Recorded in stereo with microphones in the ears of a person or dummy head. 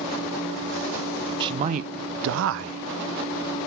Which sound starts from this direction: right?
A man speaking, at 1.4 s.